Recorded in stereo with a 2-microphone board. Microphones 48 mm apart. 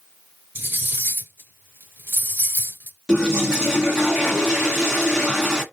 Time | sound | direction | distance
0.6 | cutlery clinking | 45° right (ahead or behind) | 1.3 m
3.1 | a toilet flushing | 15° right (ahead or behind) | 1.6 m